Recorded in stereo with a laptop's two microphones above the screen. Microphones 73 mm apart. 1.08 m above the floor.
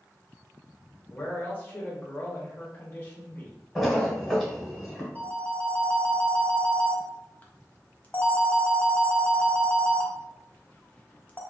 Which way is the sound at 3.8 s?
Centre (ahead or behind).